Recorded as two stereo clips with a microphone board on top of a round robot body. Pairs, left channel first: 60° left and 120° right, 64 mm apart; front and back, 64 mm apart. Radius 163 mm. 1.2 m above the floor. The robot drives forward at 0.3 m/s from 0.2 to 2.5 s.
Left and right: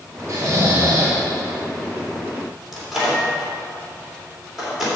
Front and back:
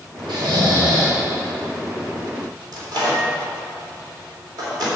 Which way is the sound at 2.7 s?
150° left.